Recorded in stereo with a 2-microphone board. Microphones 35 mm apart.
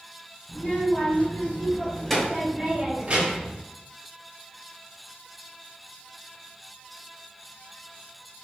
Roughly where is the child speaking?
Left.